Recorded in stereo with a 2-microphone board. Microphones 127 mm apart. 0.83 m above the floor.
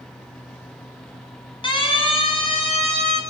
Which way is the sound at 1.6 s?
40° left (ahead or behind).